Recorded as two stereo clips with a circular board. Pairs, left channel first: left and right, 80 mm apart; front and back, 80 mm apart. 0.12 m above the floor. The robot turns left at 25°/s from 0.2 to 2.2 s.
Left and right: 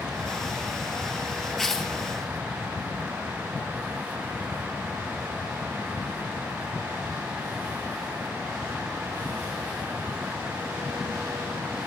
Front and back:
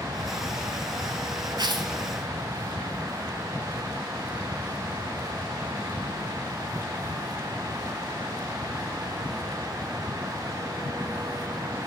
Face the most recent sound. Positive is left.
turn(degrees=160)